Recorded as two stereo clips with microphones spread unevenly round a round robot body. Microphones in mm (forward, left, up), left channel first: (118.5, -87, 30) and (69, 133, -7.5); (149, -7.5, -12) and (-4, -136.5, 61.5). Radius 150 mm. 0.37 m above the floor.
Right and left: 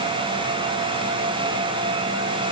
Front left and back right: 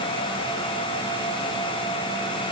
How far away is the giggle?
No giggle in this recording.